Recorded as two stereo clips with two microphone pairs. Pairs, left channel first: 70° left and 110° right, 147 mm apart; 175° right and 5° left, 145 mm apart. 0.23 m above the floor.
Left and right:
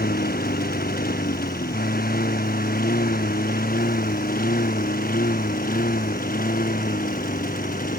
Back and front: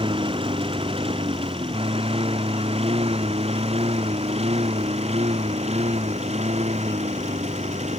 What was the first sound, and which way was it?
A lawn mower, 60° left.